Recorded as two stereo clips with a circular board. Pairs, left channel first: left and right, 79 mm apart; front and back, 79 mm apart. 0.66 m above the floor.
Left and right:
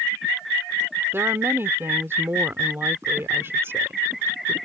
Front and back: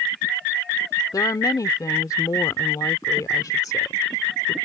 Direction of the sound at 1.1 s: 35° right.